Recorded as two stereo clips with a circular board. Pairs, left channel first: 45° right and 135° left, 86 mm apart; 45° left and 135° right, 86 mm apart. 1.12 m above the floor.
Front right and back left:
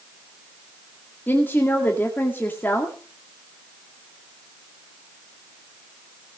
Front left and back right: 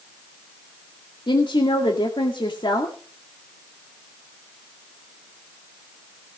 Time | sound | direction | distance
1.3 | a woman speaking | 20° left | 2 m